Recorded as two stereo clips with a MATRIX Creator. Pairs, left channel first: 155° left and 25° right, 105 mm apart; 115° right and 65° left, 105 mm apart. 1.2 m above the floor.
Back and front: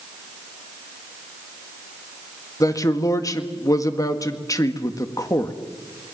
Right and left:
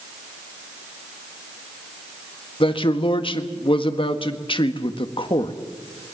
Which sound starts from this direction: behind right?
A man speaking, at 2.6 s.